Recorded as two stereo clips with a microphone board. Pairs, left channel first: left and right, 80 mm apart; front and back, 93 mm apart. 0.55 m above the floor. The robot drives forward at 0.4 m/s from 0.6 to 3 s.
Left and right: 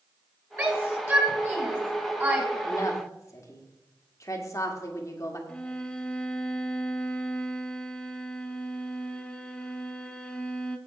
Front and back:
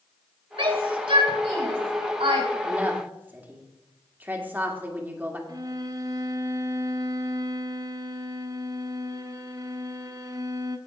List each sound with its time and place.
0.6 s a shout: 150° right, 4 m; by 2.5 s 155° right, 4.5 m
2.6 s a woman speaking: 110° left, 1.6 m; by 5.4 s 115° left, 1.6 m
5.5 s a violin: 160° left, 0.8 m